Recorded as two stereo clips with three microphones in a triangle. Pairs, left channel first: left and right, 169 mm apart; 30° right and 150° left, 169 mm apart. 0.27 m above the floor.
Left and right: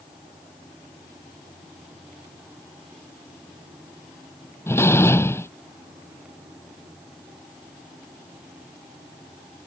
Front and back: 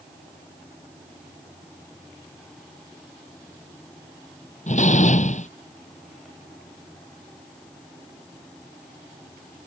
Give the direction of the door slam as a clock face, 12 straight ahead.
12 o'clock.